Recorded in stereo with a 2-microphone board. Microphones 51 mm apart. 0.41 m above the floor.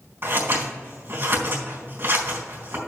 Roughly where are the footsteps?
No footsteps in this recording.